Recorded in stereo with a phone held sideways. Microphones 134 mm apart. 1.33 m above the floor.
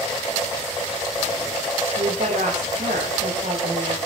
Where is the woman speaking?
75° right (ahead or behind), 5.5 m.